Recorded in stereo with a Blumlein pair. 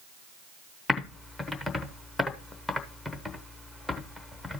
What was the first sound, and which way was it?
Typing on a keyboard, 10° left.